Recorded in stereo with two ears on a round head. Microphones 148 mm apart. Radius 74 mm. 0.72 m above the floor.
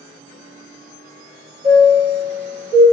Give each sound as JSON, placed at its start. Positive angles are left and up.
{"t": 1.6, "sound": "a chime", "side_deg": -15, "distance_m": 1.7}